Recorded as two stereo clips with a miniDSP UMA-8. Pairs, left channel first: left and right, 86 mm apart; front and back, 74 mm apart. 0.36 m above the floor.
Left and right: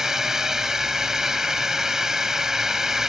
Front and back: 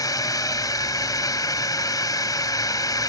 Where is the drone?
5° right.